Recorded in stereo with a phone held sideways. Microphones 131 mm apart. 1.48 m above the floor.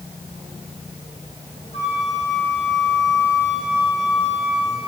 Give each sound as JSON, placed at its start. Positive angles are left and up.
{"t": 1.7, "sound": "a flute", "side_deg": 45, "distance_m": 3.5}